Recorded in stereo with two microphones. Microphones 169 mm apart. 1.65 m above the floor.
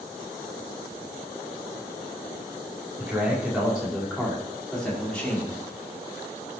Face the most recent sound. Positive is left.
turn(degrees=10)  # may be behind; listen again after turning